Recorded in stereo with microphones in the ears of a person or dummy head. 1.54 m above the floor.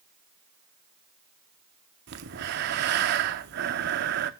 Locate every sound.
2.1 s breathing: 55° right (ahead or behind), 0.7 m